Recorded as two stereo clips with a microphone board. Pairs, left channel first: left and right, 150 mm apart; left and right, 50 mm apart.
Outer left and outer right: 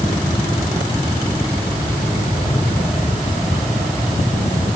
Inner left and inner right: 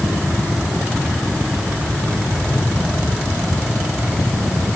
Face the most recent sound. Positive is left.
No sound to turn to.